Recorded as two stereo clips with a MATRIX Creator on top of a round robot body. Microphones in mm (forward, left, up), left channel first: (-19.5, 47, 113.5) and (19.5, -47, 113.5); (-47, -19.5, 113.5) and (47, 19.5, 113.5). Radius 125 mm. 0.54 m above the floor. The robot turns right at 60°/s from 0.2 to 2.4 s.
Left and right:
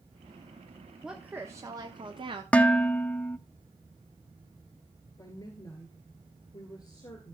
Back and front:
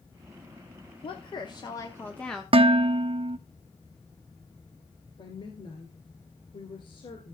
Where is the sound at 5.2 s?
165° left, 2.5 m.